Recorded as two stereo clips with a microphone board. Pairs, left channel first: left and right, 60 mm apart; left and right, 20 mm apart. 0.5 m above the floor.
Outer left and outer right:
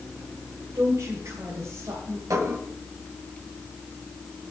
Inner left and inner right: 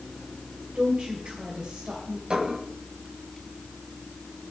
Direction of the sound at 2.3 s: 70° right (ahead or behind).